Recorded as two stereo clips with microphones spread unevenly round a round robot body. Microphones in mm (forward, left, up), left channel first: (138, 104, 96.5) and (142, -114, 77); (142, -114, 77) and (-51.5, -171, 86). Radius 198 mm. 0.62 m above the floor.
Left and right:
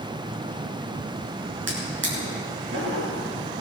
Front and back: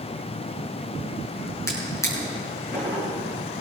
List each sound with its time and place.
1.7 s a drawer: 60° right, 6.5 m